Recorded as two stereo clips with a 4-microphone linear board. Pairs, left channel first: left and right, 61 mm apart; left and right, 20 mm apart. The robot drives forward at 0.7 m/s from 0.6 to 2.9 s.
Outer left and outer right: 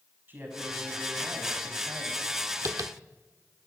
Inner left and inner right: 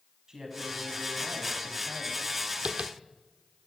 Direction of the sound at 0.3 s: 35° right (ahead or behind).